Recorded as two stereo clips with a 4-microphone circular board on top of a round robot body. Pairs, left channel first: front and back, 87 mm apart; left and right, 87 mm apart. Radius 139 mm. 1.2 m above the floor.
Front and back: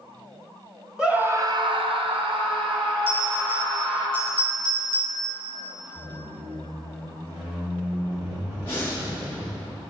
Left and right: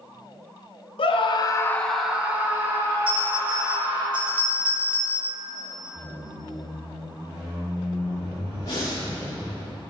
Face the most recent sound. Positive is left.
turn(degrees=60)